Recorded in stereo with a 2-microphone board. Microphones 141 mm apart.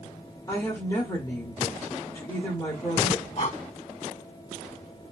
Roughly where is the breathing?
Left.